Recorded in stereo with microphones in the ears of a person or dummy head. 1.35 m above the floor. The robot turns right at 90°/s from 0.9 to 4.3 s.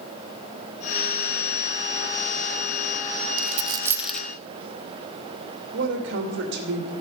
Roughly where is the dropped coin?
Right.